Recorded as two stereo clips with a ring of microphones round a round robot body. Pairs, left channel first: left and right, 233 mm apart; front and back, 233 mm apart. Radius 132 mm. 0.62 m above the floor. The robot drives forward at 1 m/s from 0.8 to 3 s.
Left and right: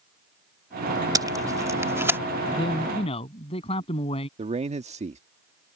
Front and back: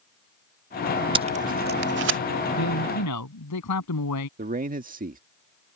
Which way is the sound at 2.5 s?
20° left.